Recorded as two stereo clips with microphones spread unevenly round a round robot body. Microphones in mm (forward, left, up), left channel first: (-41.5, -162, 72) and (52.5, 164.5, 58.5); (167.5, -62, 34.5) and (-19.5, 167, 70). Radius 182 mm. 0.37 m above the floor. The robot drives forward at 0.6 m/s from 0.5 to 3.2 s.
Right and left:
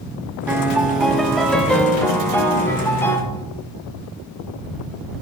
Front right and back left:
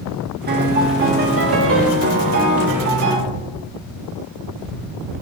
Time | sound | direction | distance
0.5 | a piano | 145° left | 1.3 m